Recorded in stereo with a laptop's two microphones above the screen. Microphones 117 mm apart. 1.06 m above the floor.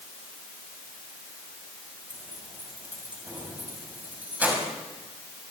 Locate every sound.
2.1 s keys jangling: 15° right (ahead or behind), 5.5 m